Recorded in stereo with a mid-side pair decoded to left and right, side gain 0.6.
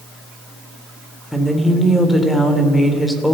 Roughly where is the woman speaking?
Ahead.